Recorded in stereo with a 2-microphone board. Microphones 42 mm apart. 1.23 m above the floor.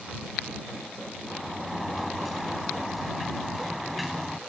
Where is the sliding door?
5° right (ahead or behind).